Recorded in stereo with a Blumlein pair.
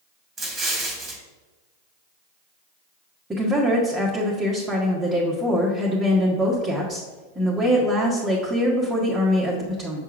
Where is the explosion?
20° right, 1.8 m.